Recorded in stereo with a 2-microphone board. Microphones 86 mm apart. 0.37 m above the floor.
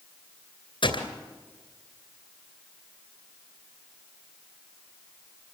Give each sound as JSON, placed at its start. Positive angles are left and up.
{"t": 0.8, "sound": "a gunshot", "side_deg": 75, "distance_m": 2.5}